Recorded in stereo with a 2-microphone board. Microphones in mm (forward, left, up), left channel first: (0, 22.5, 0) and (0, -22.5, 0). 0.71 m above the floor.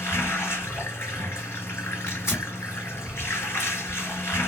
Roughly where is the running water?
Left.